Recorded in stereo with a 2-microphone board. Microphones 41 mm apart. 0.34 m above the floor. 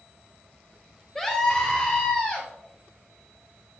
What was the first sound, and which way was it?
A scream, 10° left (ahead or behind).